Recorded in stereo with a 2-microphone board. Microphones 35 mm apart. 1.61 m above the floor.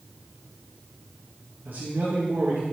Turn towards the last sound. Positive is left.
turn(degrees=-60)  # may be behind; listen again after turning